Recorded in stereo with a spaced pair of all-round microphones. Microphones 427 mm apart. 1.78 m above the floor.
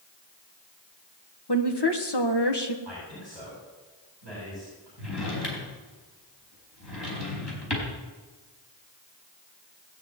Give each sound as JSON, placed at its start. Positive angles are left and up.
{"t": 1.5, "sound": "a woman speaking", "side_deg": 65, "distance_m": 1.7}
{"t": 2.9, "sound": "a man speaking", "side_deg": 80, "distance_m": 9.0}
{"t": 5.0, "sound": "a drawer", "side_deg": 70, "distance_m": 4.5}